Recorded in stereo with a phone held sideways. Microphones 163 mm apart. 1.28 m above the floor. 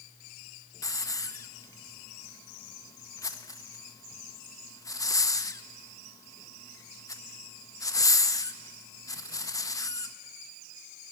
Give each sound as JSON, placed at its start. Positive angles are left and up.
{"t": 0.8, "sound": "a hiss", "side_deg": 20, "distance_m": 0.6}